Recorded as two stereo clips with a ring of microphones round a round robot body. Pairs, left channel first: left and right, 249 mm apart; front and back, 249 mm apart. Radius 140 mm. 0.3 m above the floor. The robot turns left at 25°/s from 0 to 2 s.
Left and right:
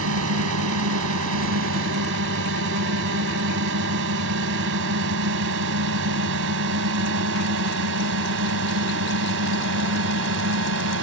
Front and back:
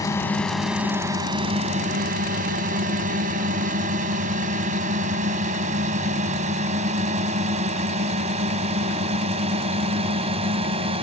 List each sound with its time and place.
0.0 s a drone: 75° right; by 11.0 s 115° right